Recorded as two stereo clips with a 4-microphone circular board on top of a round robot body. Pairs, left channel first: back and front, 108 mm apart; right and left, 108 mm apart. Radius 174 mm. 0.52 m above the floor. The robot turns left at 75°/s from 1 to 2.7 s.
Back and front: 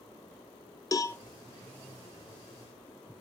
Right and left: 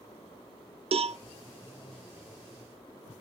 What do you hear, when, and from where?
0.9 s a cowbell: 120° left, 0.5 m; by 1.2 s 105° left, 0.5 m